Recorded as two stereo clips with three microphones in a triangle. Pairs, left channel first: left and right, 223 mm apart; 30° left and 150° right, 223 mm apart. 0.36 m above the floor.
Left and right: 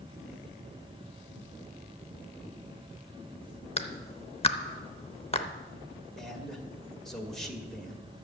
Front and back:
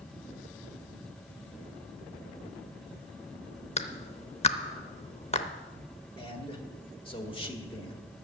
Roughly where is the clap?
Ahead left.